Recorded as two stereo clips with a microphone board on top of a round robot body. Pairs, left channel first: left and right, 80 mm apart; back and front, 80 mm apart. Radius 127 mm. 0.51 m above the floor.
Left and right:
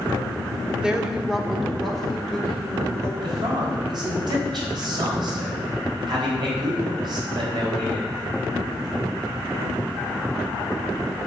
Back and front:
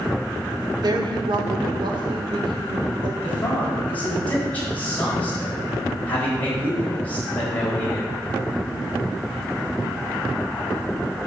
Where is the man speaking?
110° right, 4 m.